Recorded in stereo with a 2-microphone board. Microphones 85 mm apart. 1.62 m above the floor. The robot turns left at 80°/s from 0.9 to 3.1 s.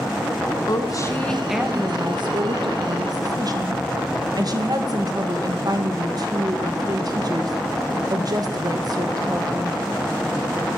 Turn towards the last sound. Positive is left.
turn(degrees=-130)